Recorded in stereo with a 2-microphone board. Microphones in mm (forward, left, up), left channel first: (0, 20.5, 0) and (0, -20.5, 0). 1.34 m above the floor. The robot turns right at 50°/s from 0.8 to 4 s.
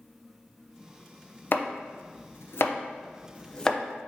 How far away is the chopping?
About 0.5 m.